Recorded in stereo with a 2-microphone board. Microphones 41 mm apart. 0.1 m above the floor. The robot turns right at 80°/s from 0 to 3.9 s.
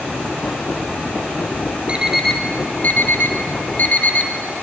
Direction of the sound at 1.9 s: 25° right (ahead or behind).